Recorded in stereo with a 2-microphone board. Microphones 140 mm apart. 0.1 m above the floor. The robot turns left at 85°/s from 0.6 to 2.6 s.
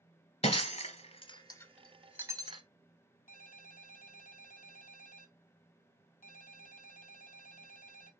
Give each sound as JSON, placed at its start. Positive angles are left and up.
{"t": 0.4, "sound": "breaking glass", "side_deg": 40, "distance_m": 1.0}
{"t": 3.3, "sound": "a ringtone", "side_deg": 65, "distance_m": 1.3}